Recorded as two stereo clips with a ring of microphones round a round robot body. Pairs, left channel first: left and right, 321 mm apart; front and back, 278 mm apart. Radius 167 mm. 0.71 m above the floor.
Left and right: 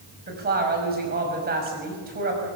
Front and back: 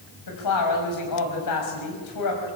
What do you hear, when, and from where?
0.3 s a woman speaking: 25° right, 5.5 m